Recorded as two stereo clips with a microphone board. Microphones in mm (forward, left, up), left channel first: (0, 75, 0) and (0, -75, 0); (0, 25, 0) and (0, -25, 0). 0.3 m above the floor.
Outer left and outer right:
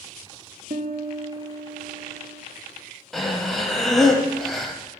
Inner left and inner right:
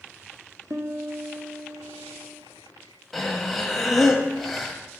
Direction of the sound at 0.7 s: 80° right.